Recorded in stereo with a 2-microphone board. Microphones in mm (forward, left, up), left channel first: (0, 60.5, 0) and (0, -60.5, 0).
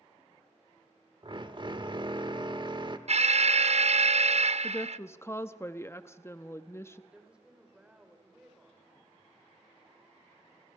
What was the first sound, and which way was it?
A drill, 40° right (ahead or behind).